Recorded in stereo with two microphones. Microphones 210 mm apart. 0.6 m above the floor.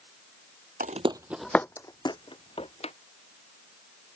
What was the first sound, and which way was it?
Footsteps, 45° right (ahead or behind).